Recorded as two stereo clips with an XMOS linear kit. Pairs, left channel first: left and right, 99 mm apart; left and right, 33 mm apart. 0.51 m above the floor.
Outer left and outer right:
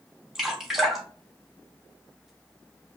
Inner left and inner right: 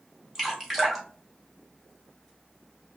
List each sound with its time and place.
0.3 s dripping: 5° right (ahead or behind), 1.4 m